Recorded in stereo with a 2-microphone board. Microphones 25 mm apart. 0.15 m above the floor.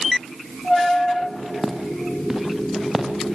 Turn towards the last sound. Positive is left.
turn(degrees=-10)  # may be behind; listen again after turning